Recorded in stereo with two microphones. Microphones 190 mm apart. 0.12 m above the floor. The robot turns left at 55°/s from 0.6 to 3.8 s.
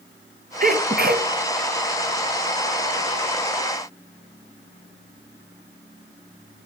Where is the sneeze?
65° right, 2 m; by 1.3 s 100° right, 2 m.